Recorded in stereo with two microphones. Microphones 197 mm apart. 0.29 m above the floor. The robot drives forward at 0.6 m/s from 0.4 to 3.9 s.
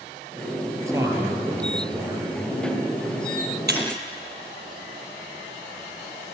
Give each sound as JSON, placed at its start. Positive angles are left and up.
{"t": 0.9, "sound": "a man speaking", "side_deg": -15, "distance_m": 6.0}
{"t": 3.7, "sound": "breaking glass", "side_deg": -55, "distance_m": 4.5}